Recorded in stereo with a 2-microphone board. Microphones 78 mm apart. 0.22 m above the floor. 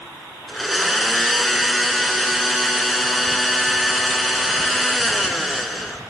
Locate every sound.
0.5 s a blender: centre (ahead or behind), 0.6 m